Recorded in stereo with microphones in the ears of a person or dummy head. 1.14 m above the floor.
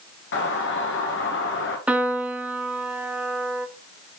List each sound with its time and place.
0.3 s a doorbell: 60° left (ahead or behind), 2.5 m
1.9 s a piano: centre (ahead or behind), 1.1 m